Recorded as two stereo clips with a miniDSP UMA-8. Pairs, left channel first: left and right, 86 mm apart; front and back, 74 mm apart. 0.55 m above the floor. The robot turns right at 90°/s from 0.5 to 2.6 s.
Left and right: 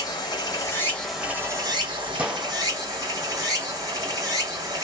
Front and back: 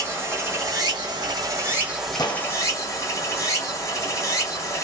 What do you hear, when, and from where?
0.0 s running water: 125° left, 1.5 m; by 4.8 s 45° right, 1.5 m
2.2 s a gunshot: 20° right, 0.7 m; by 2.5 s 10° left, 0.7 m